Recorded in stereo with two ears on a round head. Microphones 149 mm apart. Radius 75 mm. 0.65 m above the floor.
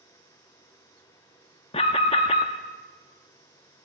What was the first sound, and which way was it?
An alarm, 35° left (ahead or behind).